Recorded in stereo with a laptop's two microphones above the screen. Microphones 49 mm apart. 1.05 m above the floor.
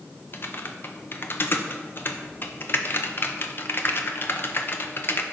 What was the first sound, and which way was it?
Typing on a keyboard, 45° left (ahead or behind).